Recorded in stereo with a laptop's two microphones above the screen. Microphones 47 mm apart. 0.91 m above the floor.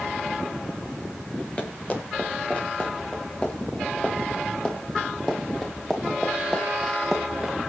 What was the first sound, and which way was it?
Running footsteps, 30° left (ahead or behind).